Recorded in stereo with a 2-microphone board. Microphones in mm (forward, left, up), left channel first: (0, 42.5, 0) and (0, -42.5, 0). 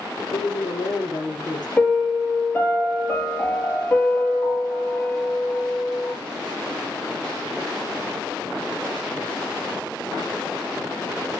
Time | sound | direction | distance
0.3 | a woman speaking | 55° left (ahead or behind) | 4.5 m
1.8 | a piano | 20° left (ahead or behind) | 3.5 m